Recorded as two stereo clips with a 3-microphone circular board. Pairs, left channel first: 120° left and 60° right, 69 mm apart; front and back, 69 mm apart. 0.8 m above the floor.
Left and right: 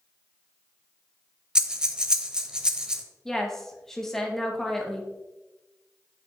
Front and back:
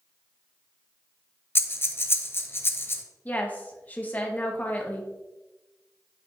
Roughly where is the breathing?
Ahead.